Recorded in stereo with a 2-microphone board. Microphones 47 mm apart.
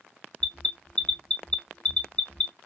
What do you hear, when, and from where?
0.4 s an alarm: 25° left (ahead or behind), 0.6 m